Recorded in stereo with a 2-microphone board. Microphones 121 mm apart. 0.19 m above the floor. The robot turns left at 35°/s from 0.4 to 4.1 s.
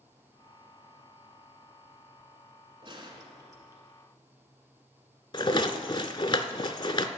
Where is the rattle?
40° left (ahead or behind), 0.6 m.